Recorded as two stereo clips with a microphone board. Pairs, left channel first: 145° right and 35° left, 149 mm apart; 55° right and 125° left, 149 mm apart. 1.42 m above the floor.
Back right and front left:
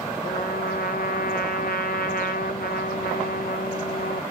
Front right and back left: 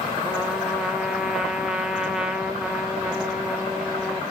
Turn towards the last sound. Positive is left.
turn(degrees=-150)